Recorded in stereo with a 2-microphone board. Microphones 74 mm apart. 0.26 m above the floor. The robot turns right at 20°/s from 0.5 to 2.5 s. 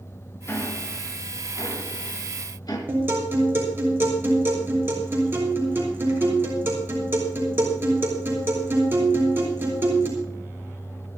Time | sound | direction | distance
0.5 | ticking | 35° left (ahead or behind) | 3 m
2.9 | a guitar | 30° right (ahead or behind) | 5 m